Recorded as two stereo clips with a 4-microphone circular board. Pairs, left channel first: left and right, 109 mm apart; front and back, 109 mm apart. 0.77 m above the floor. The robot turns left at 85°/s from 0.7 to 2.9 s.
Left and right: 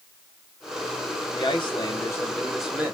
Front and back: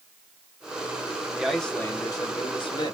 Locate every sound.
1.4 s a man speaking: 105° left, 0.9 m; by 2.9 s 30° right, 0.9 m